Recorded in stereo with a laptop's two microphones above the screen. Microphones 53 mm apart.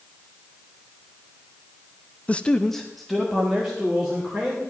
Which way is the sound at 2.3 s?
30° left (ahead or behind).